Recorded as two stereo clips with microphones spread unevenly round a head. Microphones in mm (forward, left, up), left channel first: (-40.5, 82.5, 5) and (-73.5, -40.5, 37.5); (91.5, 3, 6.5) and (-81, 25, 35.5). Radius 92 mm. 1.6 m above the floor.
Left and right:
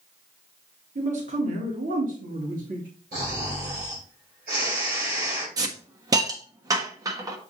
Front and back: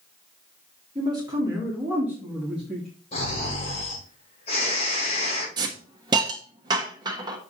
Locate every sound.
0.9 s a man speaking: 125° right, 2.5 m; by 2.9 s 100° right, 2.5 m
3.1 s snoring: 65° right, 4 m
5.6 s a hiss: 135° right, 1.1 m